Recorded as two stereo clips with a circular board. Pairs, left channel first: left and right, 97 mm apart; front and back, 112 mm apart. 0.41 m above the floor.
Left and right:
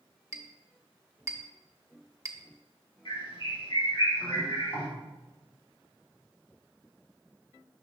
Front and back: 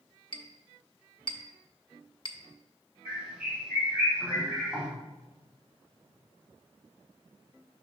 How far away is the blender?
I don't hear a blender.